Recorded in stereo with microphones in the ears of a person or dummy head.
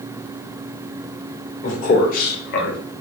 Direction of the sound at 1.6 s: 45° left (ahead or behind).